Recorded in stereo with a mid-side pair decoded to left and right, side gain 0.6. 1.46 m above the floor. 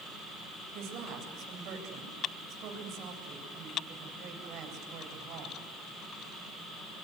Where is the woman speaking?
60° right, 8.5 m.